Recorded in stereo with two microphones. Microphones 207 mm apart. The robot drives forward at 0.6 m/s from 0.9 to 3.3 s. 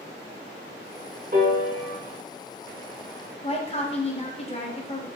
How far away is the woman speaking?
About 0.6 m.